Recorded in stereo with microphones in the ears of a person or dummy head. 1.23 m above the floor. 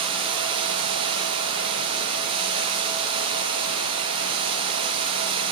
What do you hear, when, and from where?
0.0 s running water: 35° right (ahead or behind), 0.8 m